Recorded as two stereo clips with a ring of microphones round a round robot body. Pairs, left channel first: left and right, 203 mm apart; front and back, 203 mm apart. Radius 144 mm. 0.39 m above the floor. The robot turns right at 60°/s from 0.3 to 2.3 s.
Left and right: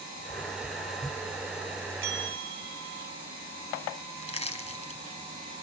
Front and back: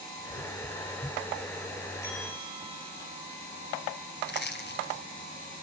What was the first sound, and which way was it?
A bell, 80° right.